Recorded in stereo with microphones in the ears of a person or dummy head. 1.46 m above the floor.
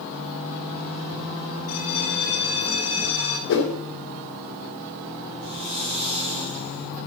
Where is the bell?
65° left (ahead or behind), 3 m.